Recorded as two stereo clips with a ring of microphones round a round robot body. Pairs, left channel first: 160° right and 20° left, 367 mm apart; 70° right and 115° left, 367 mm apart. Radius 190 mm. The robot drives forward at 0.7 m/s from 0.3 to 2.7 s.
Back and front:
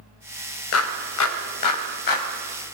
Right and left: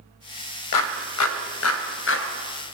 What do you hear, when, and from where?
0.7 s a clap: 105° right, 2.5 m; by 2.3 s 125° right, 2.5 m